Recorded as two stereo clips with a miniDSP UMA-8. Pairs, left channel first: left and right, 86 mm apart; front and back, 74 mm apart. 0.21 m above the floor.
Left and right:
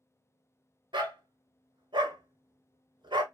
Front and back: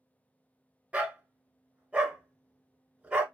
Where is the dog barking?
110° right, 0.7 m.